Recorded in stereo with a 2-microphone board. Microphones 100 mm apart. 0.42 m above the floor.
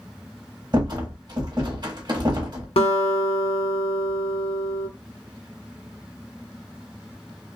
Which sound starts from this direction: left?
A guitar, at 2.8 s.